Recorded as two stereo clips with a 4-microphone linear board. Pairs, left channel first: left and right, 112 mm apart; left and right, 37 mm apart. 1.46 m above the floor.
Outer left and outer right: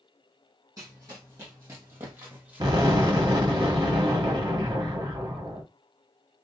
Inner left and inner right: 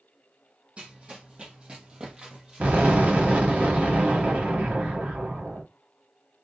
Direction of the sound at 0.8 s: 30° right (ahead or behind).